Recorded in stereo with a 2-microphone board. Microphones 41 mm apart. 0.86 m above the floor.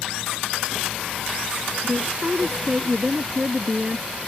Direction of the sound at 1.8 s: 20° right (ahead or behind).